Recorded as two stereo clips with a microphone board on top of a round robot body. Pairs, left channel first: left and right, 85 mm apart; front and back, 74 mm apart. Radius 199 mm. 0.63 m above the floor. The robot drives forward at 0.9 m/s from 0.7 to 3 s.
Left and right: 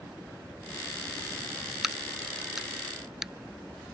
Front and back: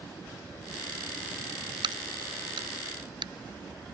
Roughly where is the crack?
Behind.